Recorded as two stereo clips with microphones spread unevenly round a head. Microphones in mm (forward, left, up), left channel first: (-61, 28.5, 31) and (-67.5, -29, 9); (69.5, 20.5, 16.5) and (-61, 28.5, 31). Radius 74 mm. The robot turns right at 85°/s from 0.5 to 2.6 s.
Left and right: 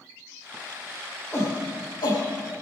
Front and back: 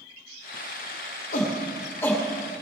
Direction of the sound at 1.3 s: 10° left.